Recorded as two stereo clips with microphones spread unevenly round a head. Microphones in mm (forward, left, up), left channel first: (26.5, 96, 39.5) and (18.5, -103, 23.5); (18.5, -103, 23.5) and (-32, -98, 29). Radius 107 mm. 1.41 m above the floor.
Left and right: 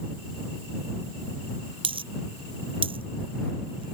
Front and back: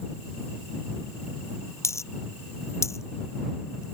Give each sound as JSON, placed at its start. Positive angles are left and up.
{"t": 1.8, "sound": "a dropped coin", "azimuth_deg": -25}